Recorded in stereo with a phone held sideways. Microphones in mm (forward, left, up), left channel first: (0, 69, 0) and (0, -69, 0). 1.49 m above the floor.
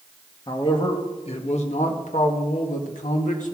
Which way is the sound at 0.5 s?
35° left (ahead or behind).